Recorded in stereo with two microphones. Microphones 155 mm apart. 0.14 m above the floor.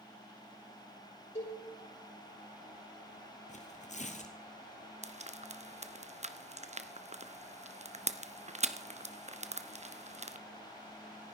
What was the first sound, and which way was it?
A cowbell, 50° left (ahead or behind).